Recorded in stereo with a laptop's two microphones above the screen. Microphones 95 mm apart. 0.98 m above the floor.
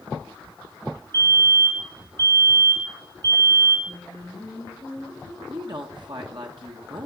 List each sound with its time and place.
1.1 s a fire alarm: 50° right (ahead or behind), 5 m
3.9 s singing: 25° left (ahead or behind), 3.5 m
5.5 s a woman speaking: 55° right (ahead or behind), 1.2 m